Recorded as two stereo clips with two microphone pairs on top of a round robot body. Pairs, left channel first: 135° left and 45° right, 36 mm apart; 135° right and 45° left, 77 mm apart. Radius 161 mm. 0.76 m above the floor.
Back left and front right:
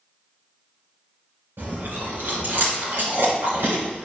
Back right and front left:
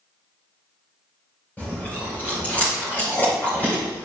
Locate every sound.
1.6 s chewing: 65° right, 3 m